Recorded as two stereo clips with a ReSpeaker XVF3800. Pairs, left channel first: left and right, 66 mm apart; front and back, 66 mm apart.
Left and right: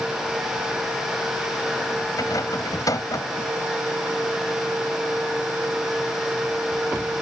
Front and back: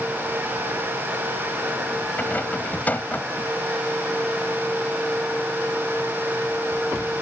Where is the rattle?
65° left.